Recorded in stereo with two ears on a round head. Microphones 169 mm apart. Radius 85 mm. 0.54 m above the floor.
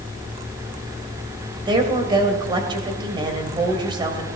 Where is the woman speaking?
25° right (ahead or behind), 2.5 m.